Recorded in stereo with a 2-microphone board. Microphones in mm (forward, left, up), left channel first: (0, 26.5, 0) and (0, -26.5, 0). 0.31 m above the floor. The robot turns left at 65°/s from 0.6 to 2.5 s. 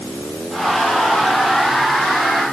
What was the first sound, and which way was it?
Only background noise.